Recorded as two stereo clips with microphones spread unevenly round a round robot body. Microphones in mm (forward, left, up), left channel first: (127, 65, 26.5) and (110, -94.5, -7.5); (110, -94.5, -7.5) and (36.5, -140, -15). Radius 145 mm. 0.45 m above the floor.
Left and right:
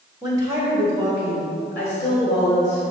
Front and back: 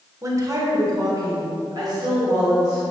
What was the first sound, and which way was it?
A woman speaking, 135° right.